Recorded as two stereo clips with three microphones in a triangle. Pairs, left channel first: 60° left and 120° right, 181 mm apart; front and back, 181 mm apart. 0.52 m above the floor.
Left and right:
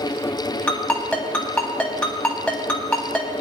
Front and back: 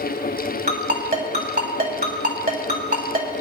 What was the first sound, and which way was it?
A ringtone, 145° left.